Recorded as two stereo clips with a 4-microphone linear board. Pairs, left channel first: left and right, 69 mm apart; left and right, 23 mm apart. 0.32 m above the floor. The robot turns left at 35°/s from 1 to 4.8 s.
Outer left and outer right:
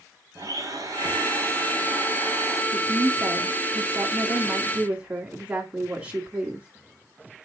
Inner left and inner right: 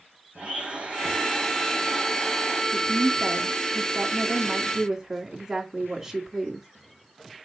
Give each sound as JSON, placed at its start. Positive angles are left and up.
{"t": 0.3, "sound": "a blender", "azimuth_deg": -125, "distance_m": 3.5}
{"t": 2.7, "sound": "a woman speaking", "azimuth_deg": -85, "distance_m": 2.5}